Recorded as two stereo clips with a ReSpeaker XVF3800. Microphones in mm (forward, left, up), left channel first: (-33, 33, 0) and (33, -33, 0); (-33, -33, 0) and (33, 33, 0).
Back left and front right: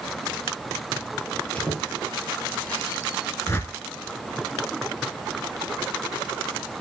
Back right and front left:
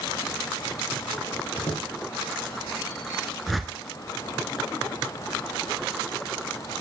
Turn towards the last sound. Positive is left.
turn(degrees=135)